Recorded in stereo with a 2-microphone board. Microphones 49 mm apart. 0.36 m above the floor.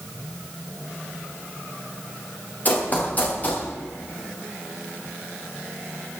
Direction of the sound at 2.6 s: 35° left (ahead or behind).